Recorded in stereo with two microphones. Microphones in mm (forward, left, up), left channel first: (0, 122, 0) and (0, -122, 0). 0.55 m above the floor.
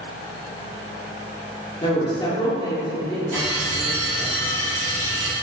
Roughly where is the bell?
Right.